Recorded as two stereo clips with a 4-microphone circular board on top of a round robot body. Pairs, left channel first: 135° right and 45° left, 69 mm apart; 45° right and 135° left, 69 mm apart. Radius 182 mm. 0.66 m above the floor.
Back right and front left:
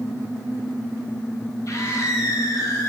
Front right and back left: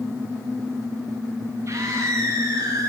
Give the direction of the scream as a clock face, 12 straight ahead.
6 o'clock.